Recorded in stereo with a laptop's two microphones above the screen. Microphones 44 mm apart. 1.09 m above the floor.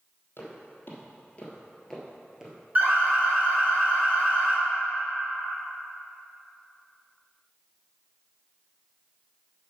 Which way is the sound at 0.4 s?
60° left (ahead or behind).